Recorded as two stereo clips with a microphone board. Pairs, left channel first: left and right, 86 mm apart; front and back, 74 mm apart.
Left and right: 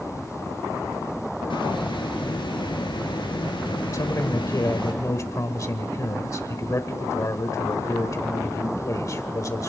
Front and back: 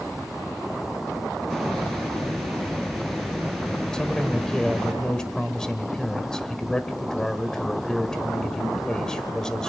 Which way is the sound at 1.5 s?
80° left.